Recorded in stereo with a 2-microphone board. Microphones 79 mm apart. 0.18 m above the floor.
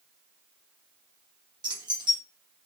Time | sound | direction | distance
1.6 | keys jangling | 65° right (ahead or behind) | 2 m